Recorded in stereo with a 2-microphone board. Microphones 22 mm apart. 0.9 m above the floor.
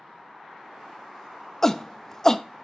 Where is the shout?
20° left (ahead or behind), 0.6 m.